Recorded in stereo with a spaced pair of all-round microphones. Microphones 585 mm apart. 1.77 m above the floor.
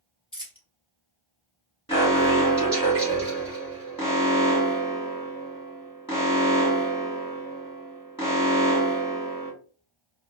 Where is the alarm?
10° left (ahead or behind), 2.5 m.